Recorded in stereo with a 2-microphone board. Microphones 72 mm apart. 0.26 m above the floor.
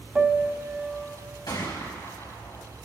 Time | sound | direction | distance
0.1 | a piano | 15° right (ahead or behind) | 1.1 m
1.5 | a gunshot | 75° left (ahead or behind) | 4 m